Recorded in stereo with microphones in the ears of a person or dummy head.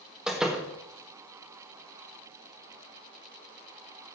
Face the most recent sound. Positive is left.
turn(degrees=0)  # may be behind; listen again after turning